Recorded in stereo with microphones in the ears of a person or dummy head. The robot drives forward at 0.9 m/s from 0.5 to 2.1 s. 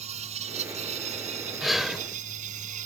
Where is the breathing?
Centre (ahead or behind).